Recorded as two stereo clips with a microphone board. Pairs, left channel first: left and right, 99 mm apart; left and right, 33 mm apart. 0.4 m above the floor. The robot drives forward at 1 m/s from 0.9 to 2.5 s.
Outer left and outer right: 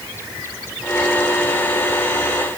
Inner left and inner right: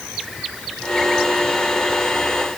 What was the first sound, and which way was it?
Only background noise.